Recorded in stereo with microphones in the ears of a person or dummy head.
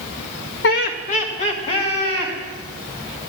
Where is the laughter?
65° left (ahead or behind), 0.8 m; by 2.3 s 35° left (ahead or behind), 3.5 m.